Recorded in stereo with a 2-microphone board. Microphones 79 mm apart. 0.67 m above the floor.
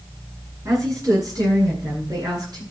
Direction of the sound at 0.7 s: 45° right (ahead or behind).